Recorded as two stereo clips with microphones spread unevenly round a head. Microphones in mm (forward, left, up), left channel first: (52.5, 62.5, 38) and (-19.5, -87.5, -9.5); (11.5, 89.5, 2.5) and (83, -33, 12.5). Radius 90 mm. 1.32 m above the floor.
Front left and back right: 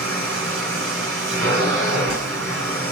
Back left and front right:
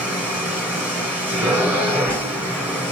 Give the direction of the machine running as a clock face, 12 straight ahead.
5 o'clock.